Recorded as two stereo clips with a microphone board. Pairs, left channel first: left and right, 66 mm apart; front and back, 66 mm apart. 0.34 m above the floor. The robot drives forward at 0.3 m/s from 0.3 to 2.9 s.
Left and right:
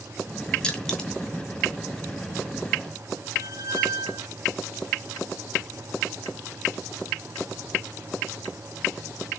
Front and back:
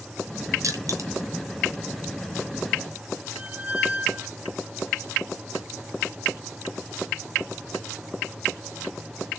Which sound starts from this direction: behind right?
A squeak, at 3.4 s.